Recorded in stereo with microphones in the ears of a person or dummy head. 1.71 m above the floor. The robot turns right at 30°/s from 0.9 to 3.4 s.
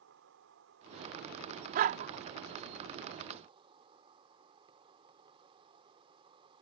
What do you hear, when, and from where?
0.0 s an insect: 105° right; by 6.6 s 30° right
1.8 s a dog barking: 50° right (ahead or behind)